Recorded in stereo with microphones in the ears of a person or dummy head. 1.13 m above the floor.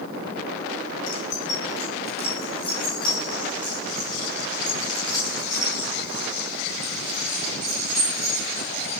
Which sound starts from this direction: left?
Keys jangling, at 1.1 s.